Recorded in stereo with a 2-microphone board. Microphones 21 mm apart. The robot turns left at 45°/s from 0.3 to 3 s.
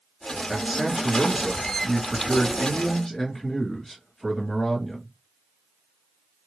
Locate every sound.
0.5 s a man speaking: 20° right (ahead or behind), 1.5 m; by 5.1 s 20° left (ahead or behind), 1.5 m